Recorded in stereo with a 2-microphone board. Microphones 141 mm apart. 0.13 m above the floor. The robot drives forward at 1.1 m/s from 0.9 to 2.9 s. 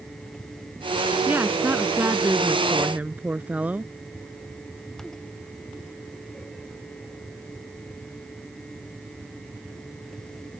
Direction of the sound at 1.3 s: 15° right (ahead or behind).